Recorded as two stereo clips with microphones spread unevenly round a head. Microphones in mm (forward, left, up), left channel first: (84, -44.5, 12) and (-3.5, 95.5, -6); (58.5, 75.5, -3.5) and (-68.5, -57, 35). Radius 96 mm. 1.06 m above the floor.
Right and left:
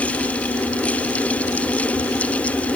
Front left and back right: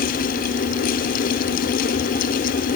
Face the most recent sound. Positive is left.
No sound to turn to.